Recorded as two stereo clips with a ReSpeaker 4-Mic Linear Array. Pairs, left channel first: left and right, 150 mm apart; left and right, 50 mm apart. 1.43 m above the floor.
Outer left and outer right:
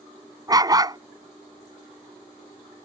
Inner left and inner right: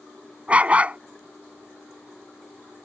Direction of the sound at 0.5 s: 25° right (ahead or behind).